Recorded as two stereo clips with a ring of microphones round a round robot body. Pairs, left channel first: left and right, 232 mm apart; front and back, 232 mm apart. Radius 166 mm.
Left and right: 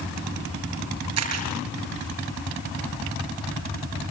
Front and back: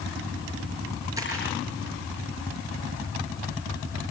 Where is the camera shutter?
100° right, 6 m.